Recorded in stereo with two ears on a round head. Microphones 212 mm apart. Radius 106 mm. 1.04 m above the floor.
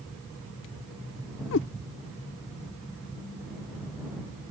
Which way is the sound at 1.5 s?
55° left (ahead or behind).